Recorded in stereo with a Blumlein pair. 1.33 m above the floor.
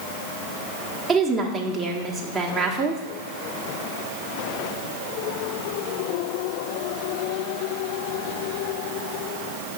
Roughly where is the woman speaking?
Ahead.